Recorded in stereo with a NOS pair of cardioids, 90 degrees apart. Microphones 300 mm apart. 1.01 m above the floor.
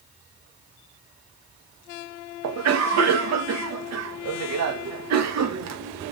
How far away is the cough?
About 0.9 m.